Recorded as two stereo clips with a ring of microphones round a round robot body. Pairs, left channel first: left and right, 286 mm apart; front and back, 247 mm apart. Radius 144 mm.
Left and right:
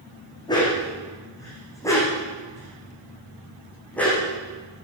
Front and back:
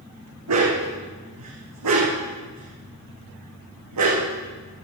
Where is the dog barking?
165° left, 8 m; by 4.2 s 175° left, 9.5 m.